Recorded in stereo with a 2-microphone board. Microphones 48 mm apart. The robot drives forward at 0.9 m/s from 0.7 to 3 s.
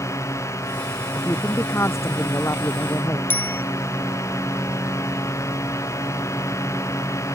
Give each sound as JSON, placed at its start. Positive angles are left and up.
{"t": 0.0, "sound": "a drone", "side_deg": 85}
{"t": 1.1, "sound": "a woman speaking", "side_deg": 60}
{"t": 3.3, "sound": "a bicycle bell", "side_deg": 40}